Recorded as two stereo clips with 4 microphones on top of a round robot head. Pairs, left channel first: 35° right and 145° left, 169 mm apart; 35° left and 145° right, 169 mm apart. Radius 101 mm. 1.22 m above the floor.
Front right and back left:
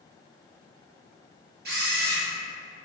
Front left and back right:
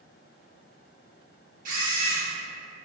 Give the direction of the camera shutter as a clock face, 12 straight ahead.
6 o'clock.